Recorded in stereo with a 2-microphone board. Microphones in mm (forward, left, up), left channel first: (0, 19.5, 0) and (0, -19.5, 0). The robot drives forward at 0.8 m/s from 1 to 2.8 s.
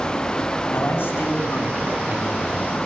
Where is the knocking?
I don't hear knocking.